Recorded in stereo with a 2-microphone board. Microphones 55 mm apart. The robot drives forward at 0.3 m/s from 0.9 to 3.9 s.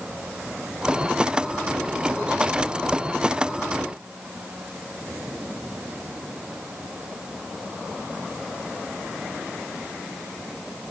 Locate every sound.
Only background noise.